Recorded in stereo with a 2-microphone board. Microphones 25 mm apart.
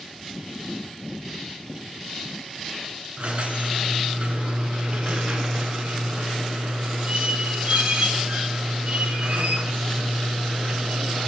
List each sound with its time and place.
3.2 s a squeak: 60° right (ahead or behind), 0.7 m